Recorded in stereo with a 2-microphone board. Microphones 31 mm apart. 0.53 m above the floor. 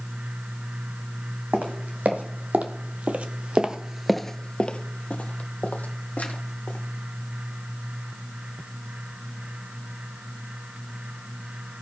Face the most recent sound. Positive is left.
turn(degrees=70)  # may be behind; listen again after turning